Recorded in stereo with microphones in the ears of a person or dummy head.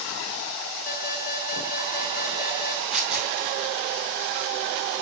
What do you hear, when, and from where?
0.9 s an alarm: 55° left (ahead or behind), 4.5 m
2.9 s tearing paper: centre (ahead or behind), 0.8 m